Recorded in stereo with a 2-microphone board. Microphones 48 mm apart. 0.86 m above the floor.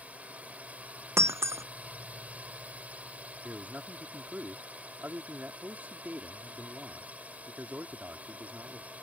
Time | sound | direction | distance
0.0 | a drone | 30° right (ahead or behind) | ?
1.2 | breaking glass | 75° right (ahead or behind) | ?
3.4 | a man speaking | 35° right (ahead or behind) | ?